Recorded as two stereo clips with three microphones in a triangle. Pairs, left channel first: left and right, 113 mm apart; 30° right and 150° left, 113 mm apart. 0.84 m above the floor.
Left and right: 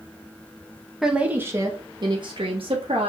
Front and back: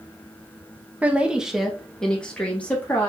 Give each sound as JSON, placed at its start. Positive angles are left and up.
{"t": 1.0, "sound": "a woman speaking", "azimuth_deg": -170, "distance_m": 0.7}